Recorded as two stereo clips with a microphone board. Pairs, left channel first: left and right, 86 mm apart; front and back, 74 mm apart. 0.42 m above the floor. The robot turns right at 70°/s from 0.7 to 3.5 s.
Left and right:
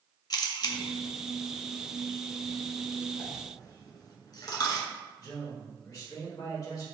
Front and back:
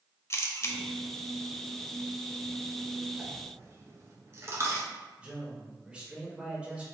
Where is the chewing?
I don't hear chewing.